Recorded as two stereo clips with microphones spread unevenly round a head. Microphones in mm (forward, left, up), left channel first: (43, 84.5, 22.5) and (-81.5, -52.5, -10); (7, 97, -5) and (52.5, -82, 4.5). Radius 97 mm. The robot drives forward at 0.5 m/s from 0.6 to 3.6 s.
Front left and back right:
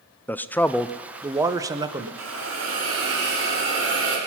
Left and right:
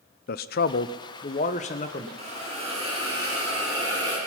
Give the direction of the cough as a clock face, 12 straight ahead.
I don't hear a cough.